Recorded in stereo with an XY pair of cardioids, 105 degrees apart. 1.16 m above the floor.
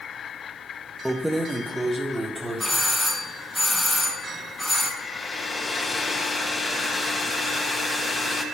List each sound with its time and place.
1.1 s keys jangling: straight ahead, 0.7 m; by 2.8 s 20° right, 2.5 m
2.6 s a doorbell: straight ahead, 2.5 m
5.0 s a hair dryer: 20° left, 1.5 m